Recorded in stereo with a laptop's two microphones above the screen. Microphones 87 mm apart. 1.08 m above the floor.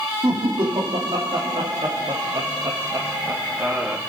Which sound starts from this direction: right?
Laughter, at 0.2 s.